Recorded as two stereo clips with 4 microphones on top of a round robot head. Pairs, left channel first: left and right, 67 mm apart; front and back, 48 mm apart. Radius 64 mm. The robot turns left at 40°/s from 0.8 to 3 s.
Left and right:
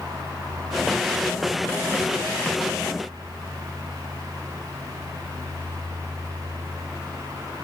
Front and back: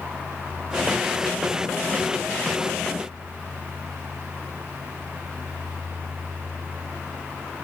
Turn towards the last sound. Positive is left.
No sound to turn to.